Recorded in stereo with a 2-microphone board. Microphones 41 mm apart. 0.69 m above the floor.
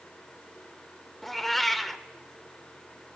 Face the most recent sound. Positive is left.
turn(degrees=5)  # may be behind; listen again after turning